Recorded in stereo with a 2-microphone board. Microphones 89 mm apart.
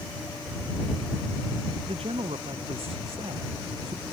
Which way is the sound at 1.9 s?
85° right.